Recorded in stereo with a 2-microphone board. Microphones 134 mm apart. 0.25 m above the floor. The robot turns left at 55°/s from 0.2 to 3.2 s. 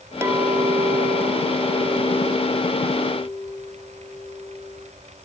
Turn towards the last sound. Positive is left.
turn(degrees=155)